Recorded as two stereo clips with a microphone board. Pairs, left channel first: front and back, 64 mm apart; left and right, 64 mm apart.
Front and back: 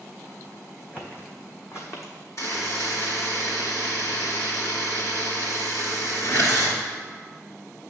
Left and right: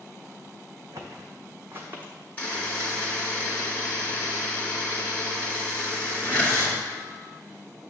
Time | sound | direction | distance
0.9 | footsteps | 65° right | 1.7 m
2.4 | a buzzer | 25° left | 2 m